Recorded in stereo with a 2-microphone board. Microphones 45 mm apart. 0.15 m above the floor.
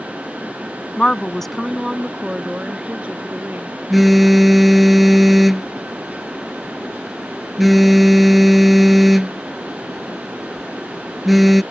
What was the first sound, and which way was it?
A woman speaking, 25° left (ahead or behind).